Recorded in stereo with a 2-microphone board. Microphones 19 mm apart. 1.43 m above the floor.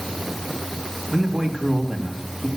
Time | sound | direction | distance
1.1 | a man speaking | 25° right (ahead or behind) | 2 m